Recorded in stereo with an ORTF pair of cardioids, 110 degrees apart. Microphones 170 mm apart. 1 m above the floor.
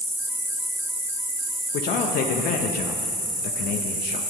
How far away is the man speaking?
About 0.6 m.